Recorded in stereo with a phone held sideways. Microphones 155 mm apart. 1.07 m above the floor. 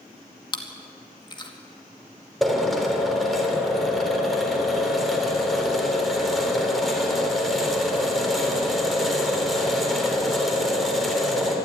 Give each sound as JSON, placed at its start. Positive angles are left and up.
{"t": 0.5, "sound": "chewing", "side_deg": 30, "distance_m": 2.0}
{"t": 2.4, "sound": "a drill", "side_deg": 0, "distance_m": 3.5}